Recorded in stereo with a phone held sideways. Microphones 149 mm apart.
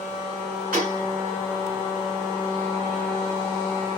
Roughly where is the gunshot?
Right.